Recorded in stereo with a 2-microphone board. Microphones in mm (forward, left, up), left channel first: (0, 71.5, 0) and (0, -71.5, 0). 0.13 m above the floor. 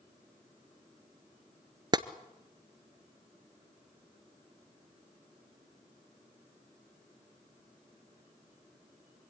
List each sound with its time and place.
1.9 s tapping: 30° right (ahead or behind), 0.7 m